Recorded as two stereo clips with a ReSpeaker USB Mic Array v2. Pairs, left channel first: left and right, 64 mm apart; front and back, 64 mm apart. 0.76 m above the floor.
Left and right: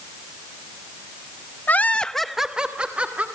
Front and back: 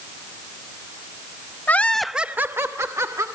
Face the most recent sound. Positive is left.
turn(degrees=-155)